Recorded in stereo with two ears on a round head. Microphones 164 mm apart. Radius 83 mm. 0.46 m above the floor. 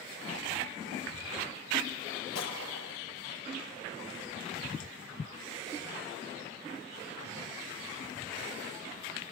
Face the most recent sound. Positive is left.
turn(degrees=85)